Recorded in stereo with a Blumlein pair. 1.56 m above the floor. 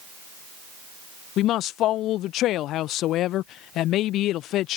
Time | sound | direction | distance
1.4 | a woman speaking | 35° left | ?